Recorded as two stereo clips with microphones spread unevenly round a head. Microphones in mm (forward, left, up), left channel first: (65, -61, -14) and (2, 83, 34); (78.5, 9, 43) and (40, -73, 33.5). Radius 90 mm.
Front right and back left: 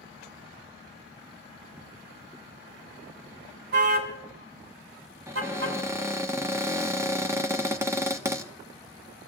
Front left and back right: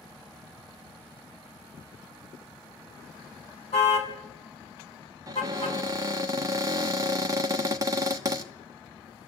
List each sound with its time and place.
3.7 s a car horn: 100° left, 4.5 m; by 5.8 s 140° left, 5 m
5.3 s a cupboard door: 165° right, 1.1 m